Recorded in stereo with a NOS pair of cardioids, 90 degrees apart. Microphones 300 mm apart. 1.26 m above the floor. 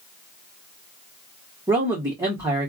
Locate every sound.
1.7 s a man speaking: 10° right, 1.6 m